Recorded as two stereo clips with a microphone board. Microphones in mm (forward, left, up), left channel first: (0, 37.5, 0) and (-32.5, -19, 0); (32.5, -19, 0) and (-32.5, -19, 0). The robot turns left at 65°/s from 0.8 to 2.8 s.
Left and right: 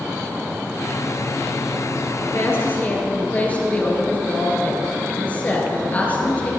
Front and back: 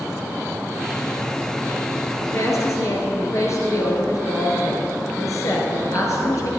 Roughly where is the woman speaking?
Ahead left.